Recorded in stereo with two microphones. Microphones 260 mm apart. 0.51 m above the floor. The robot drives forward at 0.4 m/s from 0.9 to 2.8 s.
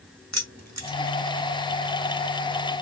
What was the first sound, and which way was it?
Keys jangling, 70° right (ahead or behind).